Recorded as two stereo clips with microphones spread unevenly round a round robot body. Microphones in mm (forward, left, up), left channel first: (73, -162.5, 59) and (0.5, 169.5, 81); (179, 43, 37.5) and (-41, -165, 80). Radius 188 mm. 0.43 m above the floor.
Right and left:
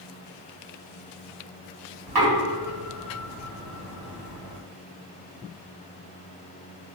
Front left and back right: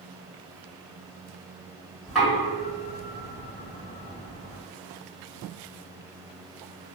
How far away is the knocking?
About 1.6 m.